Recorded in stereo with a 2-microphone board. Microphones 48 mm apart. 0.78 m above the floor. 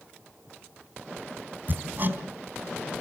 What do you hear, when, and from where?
1.7 s hammering: 40° right (ahead or behind), 3.5 m